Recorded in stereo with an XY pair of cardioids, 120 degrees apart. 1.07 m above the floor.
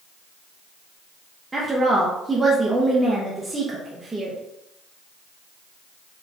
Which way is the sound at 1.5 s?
20° right.